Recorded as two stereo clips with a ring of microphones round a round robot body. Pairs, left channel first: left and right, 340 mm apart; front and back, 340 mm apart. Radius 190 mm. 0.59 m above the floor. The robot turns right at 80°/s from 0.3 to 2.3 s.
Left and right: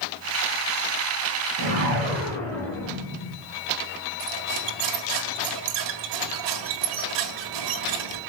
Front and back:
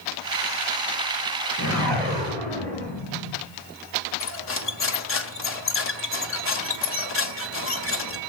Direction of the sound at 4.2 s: 55° right.